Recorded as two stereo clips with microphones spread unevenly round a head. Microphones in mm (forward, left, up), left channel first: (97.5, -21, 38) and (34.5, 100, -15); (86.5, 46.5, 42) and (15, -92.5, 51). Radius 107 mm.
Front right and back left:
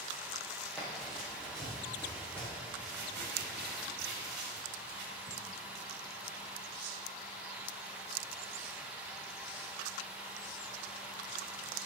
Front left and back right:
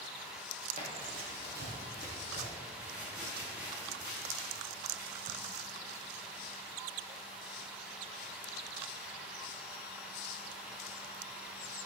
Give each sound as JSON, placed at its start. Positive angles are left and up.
{"t": 0.8, "sound": "running footsteps", "azimuth_deg": -135, "distance_m": 2.0}
{"t": 2.8, "sound": "crumpling", "azimuth_deg": 160, "distance_m": 2.0}